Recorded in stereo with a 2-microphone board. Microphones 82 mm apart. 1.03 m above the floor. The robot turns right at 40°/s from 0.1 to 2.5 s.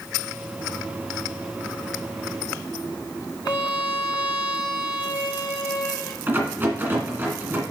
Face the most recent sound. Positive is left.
turn(degrees=-25)  # may be behind; listen again after turning